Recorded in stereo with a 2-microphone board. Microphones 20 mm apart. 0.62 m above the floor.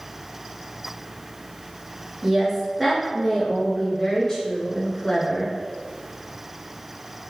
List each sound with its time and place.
2.2 s a woman speaking: 20° right (ahead or behind), 1.1 m; by 5.5 s 40° left (ahead or behind), 1.6 m